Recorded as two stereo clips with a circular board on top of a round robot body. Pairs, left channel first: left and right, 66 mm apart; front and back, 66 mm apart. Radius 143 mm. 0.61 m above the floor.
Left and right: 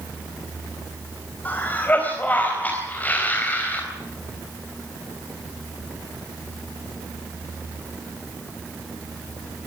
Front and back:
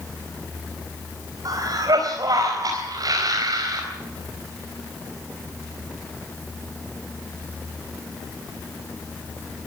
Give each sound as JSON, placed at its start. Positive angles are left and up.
{"t": 1.4, "sound": "a cough", "azimuth_deg": 155, "distance_m": 4.5}